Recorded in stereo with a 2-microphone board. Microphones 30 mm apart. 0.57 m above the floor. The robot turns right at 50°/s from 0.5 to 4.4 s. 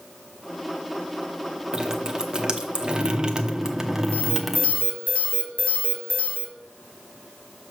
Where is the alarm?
55° left (ahead or behind), 1.6 m; by 6.5 s 45° left (ahead or behind), 1.6 m.